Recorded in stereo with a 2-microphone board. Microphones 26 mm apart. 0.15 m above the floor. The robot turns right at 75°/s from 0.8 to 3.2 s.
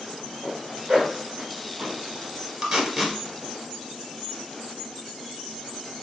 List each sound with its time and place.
0.4 s a zipper: 35° right (ahead or behind), 1.8 m; by 2.0 s 50° right (ahead or behind), 1.8 m
2.6 s tape being pulled: 20° right (ahead or behind), 1.3 m; by 3.2 s 20° left (ahead or behind), 1.3 m